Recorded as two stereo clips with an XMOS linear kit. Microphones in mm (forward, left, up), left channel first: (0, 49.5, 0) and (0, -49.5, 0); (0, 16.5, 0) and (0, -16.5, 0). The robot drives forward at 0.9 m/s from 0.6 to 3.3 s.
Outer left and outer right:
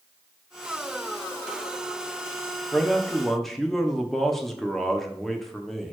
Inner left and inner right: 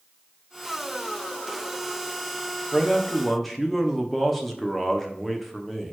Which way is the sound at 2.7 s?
5° left (ahead or behind).